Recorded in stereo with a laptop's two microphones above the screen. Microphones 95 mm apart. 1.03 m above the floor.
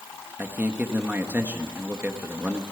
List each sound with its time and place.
0.4 s a man speaking: 20° right (ahead or behind), 1.5 m